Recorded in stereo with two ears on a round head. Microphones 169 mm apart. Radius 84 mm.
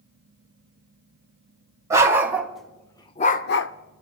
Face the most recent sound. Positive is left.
turn(degrees=70)  # may be behind; listen again after turning